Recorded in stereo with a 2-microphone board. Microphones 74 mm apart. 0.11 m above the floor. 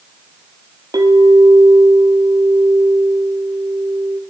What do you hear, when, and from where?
0.9 s a clink: 60° right (ahead or behind), 1.8 m